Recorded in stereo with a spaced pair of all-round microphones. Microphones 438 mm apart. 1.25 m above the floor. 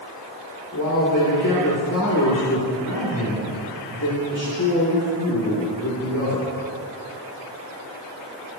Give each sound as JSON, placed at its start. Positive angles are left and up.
{"t": 0.7, "sound": "a man speaking", "side_deg": 45, "distance_m": 3.0}